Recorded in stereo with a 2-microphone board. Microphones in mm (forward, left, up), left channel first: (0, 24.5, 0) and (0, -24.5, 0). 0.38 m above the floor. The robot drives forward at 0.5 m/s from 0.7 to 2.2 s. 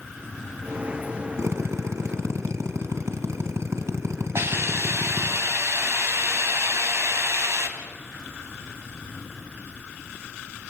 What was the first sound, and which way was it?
A drill, 75° right (ahead or behind).